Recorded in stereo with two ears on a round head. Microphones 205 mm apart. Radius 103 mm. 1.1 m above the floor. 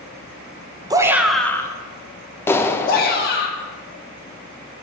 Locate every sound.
0.9 s a shout: 20° right (ahead or behind), 0.9 m; by 3.5 s 50° left (ahead or behind), 1.9 m
2.5 s a clap: 10° left (ahead or behind), 0.6 m